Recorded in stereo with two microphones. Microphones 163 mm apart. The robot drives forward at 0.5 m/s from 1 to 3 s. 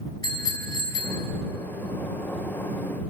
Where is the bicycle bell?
20° left (ahead or behind), 4.5 m.